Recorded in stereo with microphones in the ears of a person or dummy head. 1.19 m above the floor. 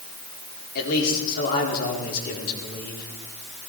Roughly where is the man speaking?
Left.